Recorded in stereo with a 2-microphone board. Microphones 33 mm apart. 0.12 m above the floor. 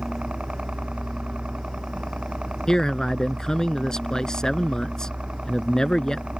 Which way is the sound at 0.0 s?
35° right (ahead or behind).